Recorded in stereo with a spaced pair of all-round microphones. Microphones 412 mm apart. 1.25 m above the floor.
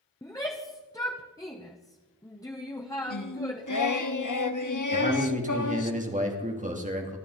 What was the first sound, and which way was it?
A shout, 10° left (ahead or behind).